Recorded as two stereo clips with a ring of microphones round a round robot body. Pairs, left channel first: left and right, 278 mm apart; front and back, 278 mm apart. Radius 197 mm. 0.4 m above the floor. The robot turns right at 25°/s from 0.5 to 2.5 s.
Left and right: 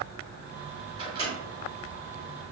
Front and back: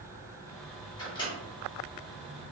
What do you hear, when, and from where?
1.0 s a microwave: 50° right, 1.0 m; by 1.3 s 40° right, 1.0 m